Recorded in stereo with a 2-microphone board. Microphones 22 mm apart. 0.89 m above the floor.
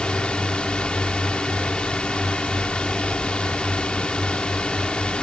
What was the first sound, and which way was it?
A drone, 55° left (ahead or behind).